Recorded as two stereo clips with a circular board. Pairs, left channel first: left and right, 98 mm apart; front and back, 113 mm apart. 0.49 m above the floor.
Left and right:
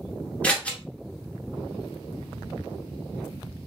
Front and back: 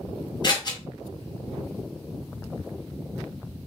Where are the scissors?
20° left, 0.9 m.